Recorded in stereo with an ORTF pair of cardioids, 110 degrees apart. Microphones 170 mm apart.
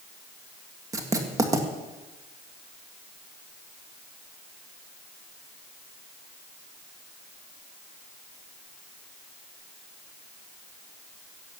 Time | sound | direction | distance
0.9 | writing | 20° right | 1.8 m